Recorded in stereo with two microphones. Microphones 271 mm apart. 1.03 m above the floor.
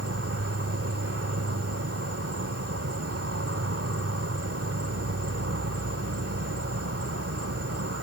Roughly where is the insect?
Right.